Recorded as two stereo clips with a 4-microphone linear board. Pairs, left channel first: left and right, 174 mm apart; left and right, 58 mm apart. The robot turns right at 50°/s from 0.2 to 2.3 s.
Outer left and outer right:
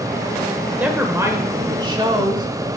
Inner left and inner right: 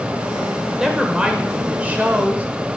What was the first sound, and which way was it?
A woman speaking, 10° right (ahead or behind).